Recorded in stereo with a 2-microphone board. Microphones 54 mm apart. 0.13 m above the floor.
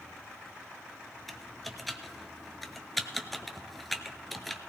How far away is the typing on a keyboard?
About 0.8 m.